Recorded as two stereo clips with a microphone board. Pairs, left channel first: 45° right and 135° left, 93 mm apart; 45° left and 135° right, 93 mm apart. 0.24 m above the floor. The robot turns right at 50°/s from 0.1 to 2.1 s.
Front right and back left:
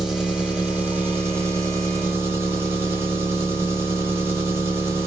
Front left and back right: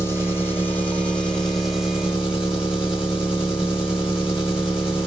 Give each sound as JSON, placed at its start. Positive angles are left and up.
{"t": 0.0, "sound": "an engine running", "azimuth_deg": 55, "distance_m": 1.4}